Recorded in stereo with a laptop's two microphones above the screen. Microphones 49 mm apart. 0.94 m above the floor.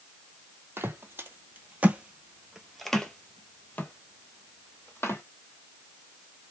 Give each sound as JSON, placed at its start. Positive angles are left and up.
{"t": 0.8, "sound": "footsteps", "side_deg": -50, "distance_m": 1.4}